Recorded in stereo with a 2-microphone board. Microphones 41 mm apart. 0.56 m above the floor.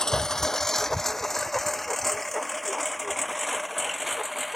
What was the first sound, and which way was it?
A lawn mower, 15° left (ahead or behind).